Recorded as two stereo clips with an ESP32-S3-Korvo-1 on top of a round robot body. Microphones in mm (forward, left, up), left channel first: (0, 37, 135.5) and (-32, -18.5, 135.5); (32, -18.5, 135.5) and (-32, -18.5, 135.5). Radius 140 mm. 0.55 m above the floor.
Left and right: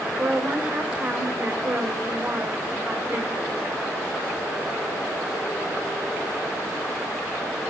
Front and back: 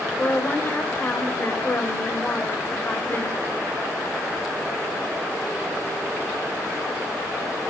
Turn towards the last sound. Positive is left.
turn(degrees=-60)